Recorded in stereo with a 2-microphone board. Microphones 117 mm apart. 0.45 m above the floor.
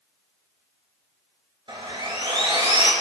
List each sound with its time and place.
1.7 s sawing: 45° right (ahead or behind), 2.5 m